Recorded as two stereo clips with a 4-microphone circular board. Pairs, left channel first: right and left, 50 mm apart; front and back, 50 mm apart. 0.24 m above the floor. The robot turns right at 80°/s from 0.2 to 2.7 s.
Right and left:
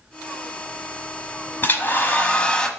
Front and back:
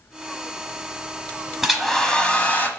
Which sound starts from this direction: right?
A hair dryer, at 1.6 s.